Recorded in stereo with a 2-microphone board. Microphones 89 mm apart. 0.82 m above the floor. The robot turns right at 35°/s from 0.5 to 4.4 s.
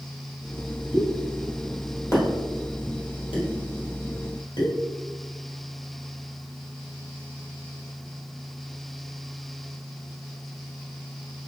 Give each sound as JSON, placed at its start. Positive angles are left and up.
{"t": 0.9, "sound": "a pop", "side_deg": -10, "distance_m": 1.4}